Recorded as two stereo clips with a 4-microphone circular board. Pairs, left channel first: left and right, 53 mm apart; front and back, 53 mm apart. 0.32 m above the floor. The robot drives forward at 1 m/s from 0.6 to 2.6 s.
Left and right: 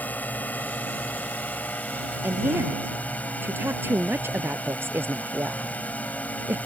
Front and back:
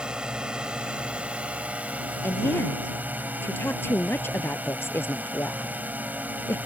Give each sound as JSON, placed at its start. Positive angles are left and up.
{"t": 0.0, "sound": "a drone", "azimuth_deg": 120}
{"t": 2.2, "sound": "a woman speaking", "azimuth_deg": -40}